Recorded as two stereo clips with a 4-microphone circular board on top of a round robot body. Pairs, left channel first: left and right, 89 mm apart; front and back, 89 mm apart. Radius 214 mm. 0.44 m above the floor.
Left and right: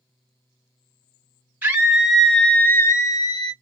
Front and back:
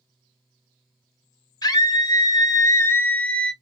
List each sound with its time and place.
1.6 s a scream: 20° right, 1.1 m; by 3.5 s 80° left, 1.1 m